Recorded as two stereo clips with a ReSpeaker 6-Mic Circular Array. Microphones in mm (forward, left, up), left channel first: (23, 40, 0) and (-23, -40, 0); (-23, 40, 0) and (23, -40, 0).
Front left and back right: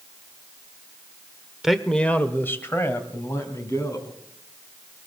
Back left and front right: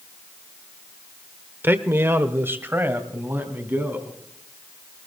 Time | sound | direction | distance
1.6 | a man speaking | 40° right | 0.9 m